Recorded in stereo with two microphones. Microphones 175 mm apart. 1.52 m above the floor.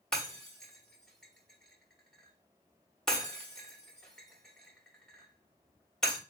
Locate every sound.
0.1 s breaking glass: 5° left (ahead or behind), 1.1 m